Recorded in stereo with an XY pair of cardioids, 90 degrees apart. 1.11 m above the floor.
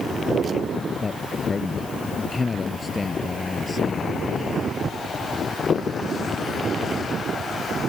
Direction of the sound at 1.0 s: 35° left.